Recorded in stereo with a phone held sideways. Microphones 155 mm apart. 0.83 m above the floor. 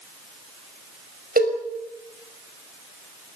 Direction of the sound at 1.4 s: 70° right (ahead or behind).